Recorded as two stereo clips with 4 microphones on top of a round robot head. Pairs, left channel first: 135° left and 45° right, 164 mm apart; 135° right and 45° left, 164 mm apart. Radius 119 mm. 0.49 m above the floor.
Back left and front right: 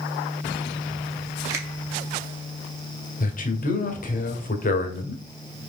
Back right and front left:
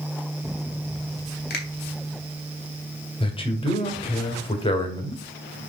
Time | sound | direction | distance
1.5 | a finger snap | 115° right | 2 m
3.2 | a man speaking | 170° left | 1.8 m